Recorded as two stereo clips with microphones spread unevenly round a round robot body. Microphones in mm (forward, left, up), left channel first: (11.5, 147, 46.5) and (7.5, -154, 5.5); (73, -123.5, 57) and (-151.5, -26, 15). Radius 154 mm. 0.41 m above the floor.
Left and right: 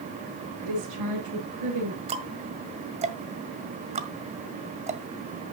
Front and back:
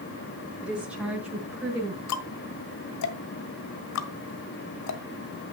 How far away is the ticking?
About 1.5 m.